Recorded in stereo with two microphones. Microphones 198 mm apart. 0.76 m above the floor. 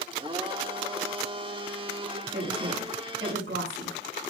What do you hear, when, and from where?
0.1 s a blender: 25° right (ahead or behind), 1.5 m
2.3 s a woman speaking: 80° right, 7.5 m